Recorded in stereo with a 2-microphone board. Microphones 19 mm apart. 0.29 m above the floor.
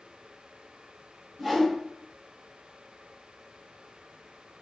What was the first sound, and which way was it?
A whoosh, 5° right (ahead or behind).